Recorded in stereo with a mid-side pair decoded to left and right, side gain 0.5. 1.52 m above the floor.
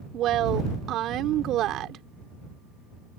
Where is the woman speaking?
65° right.